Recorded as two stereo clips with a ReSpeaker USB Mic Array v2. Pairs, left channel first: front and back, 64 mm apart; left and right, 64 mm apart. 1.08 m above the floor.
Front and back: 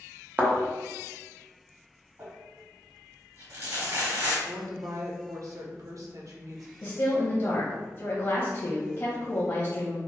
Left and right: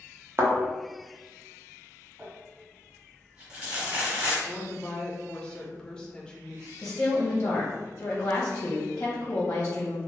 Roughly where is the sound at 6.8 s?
Ahead left.